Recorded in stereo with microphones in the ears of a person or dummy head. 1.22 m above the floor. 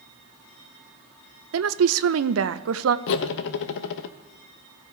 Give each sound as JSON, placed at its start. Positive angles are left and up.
{"t": 1.5, "sound": "a woman speaking", "side_deg": -75, "distance_m": 0.7}
{"t": 3.1, "sound": "cutlery clinking", "side_deg": 70, "distance_m": 0.7}